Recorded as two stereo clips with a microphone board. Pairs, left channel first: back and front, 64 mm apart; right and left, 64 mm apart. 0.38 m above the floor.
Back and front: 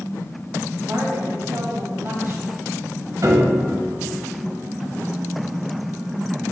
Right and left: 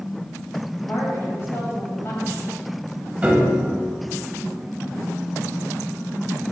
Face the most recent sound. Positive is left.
turn(degrees=20)